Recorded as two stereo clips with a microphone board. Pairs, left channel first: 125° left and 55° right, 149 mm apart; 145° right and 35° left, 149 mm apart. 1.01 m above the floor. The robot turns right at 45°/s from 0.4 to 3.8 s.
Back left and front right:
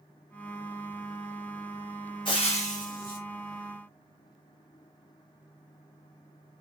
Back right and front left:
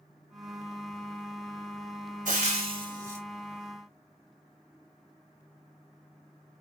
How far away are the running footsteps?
I don't hear running footsteps.